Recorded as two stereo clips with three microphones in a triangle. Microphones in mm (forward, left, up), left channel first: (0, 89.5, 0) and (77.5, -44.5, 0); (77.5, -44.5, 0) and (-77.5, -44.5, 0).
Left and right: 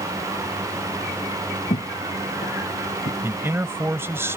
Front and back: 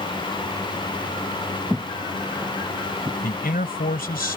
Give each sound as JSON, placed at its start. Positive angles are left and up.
{"t": 1.7, "sound": "footsteps", "azimuth_deg": 90}
{"t": 3.2, "sound": "a man speaking", "azimuth_deg": 15}